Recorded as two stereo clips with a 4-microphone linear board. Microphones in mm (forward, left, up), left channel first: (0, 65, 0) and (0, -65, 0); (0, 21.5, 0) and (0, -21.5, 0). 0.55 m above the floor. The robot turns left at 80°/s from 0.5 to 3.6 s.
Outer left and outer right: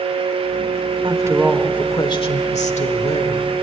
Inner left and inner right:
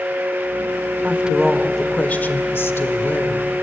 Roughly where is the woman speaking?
Behind right.